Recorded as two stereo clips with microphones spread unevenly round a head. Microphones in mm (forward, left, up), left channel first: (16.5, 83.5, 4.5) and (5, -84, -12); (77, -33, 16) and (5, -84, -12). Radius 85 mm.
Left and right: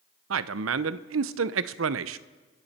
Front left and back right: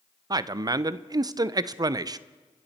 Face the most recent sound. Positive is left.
turn(degrees=-90)